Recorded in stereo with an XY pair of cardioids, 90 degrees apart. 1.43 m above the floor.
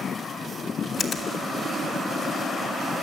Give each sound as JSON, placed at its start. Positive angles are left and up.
{"t": 1.0, "sound": "a finger snap", "azimuth_deg": 70, "distance_m": 3.0}